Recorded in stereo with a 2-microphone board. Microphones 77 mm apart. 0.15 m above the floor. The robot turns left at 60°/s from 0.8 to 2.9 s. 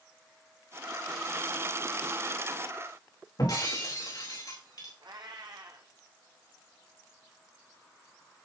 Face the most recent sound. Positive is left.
turn(degrees=-80)